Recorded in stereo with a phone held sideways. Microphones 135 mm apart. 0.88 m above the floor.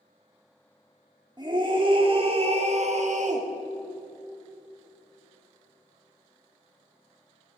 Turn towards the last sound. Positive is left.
turn(degrees=-65)  # may be behind; listen again after turning